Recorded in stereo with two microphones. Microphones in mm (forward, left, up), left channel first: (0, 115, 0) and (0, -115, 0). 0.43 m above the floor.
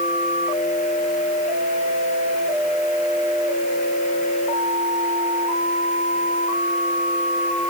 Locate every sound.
Only background noise.